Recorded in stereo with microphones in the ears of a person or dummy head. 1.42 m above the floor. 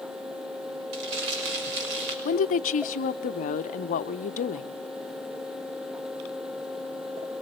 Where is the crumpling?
70° right (ahead or behind), 5.5 m.